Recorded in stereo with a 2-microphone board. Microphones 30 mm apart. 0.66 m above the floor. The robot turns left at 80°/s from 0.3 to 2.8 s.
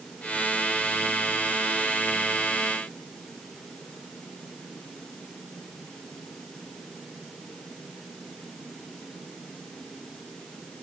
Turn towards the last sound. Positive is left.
No sound to turn to.